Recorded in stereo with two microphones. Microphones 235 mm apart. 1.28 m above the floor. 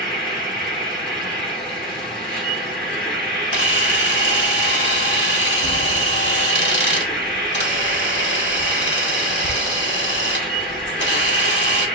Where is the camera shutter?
50° left (ahead or behind), 1.3 m.